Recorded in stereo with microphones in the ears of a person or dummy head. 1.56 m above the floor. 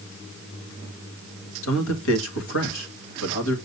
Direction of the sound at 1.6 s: 80° left.